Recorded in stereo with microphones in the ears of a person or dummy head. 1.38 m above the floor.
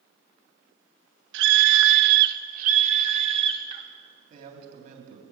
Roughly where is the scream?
Right.